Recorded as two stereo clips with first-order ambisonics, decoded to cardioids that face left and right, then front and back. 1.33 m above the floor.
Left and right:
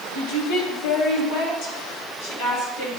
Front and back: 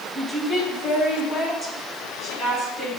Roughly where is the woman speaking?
Ahead left.